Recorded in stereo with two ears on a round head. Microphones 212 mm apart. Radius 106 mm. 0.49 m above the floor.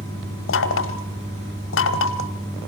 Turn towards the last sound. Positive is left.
turn(degrees=60)  # may be behind; listen again after turning